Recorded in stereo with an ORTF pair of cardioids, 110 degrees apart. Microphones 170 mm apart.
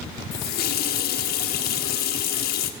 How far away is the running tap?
About 1.3 m.